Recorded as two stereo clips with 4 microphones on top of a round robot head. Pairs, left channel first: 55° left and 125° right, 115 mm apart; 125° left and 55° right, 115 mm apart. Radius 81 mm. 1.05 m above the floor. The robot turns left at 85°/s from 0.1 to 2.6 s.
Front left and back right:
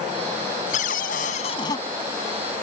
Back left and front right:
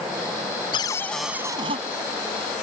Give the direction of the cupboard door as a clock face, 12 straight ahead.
9 o'clock.